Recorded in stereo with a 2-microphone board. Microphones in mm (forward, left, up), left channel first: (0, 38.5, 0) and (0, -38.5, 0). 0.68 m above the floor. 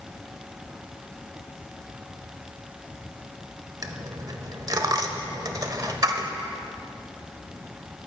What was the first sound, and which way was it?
A dropped coin, 50° right (ahead or behind).